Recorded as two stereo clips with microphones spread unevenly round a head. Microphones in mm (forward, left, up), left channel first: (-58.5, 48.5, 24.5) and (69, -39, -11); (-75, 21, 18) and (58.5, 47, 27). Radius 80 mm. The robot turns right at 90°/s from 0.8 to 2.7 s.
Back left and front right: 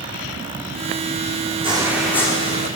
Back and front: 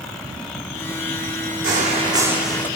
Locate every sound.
1.6 s footsteps: 25° left, 3.5 m; by 2.7 s 115° left, 4 m